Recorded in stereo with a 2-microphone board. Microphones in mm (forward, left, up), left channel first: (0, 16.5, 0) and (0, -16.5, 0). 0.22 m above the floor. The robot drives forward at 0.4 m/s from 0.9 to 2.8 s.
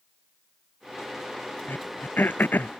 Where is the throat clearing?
75° left (ahead or behind); by 2.7 s 70° left (ahead or behind).